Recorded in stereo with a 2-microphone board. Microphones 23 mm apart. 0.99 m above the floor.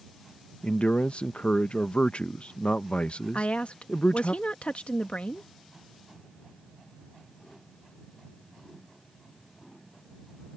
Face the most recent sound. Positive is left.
turn(degrees=60)  # may be behind; listen again after turning